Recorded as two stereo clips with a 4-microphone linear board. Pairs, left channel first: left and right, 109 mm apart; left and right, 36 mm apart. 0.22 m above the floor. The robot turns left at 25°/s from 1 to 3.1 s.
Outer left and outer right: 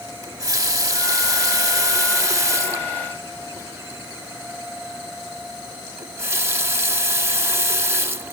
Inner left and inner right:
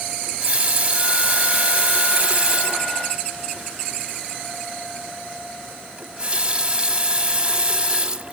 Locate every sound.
0.2 s a running tap: 75° right, 0.8 m; by 8.3 s 130° right, 0.8 m